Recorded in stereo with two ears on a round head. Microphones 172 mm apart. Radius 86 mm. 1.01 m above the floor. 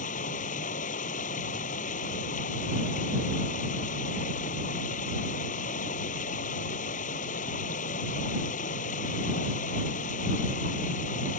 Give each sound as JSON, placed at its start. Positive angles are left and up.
{"t": 0.0, "sound": "running water", "side_deg": 40}